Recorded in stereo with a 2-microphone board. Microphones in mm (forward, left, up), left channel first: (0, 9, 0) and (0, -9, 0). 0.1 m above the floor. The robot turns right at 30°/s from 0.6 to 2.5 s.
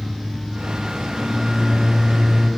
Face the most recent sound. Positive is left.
turn(degrees=-165)